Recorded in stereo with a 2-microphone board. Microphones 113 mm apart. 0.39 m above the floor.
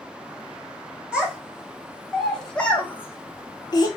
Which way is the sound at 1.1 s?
10° right (ahead or behind).